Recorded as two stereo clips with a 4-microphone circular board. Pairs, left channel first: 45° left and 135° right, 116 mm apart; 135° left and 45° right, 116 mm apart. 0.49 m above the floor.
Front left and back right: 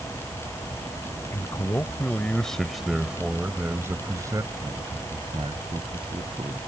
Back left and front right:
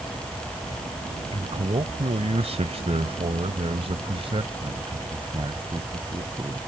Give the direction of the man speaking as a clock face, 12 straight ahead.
12 o'clock.